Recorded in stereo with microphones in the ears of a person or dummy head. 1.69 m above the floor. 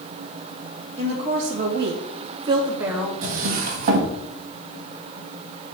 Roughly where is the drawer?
Right.